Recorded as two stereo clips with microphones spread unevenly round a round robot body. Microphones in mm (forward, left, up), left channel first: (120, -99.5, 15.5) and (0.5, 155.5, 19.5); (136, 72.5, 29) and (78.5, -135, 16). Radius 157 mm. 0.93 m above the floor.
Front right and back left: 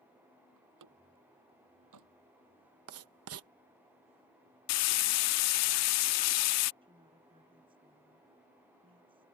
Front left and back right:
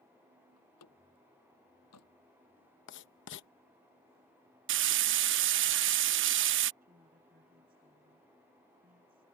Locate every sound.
0.6 s a door slam: 100° left
2.9 s writing: 95° left
4.7 s frying: 90° right
6.8 s a woman speaking: 170° right